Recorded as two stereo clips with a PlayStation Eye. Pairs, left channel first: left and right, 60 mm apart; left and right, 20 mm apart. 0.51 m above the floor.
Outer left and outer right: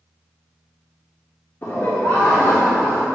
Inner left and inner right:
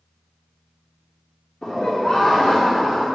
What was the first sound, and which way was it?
Laughter, 40° left (ahead or behind).